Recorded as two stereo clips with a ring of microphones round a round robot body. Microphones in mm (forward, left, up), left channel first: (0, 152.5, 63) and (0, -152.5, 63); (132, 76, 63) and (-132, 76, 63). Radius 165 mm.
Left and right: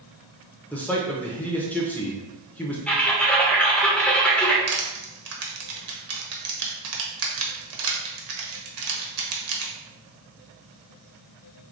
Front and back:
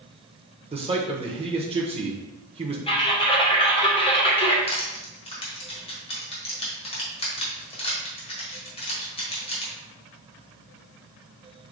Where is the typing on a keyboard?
10° left, 1.4 m.